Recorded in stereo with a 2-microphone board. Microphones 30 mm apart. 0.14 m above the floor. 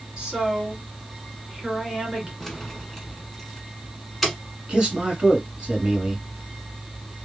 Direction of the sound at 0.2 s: 25° right (ahead or behind).